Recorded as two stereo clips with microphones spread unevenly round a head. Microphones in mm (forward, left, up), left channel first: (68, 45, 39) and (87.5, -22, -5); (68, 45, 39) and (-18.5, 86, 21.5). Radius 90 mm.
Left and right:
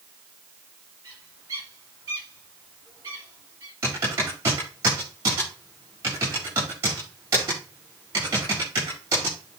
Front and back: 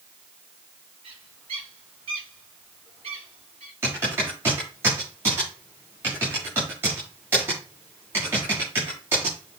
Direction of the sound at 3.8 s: 130° right.